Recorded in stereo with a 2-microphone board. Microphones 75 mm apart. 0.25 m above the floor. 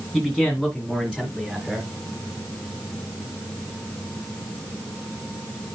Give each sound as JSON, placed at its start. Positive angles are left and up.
{"t": 0.1, "sound": "a man speaking", "side_deg": 0, "distance_m": 1.8}